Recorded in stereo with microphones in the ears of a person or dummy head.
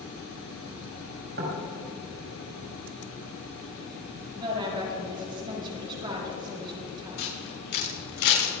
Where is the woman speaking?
25° right (ahead or behind), 6 m.